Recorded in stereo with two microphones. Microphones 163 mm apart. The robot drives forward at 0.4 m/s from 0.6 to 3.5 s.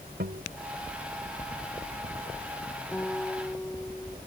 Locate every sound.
0.2 s a guitar: 85° right
2.9 s a guitar: 10° left (ahead or behind)